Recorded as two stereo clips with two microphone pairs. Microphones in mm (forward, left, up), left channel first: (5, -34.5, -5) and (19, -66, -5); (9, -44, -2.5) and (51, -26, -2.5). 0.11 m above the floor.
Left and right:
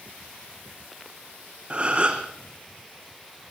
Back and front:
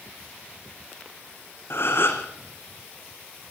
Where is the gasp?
125° right, 2.5 m.